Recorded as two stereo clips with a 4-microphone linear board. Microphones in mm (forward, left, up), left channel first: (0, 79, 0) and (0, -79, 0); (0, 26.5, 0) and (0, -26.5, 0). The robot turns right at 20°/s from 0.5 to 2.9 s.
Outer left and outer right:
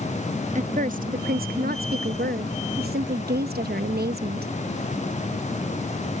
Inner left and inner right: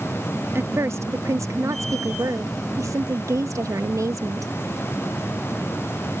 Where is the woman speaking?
130° right; by 4.5 s 80° right.